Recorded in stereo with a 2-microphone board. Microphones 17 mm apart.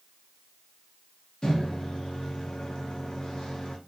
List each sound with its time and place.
1.4 s a microwave: 50° left (ahead or behind), 0.7 m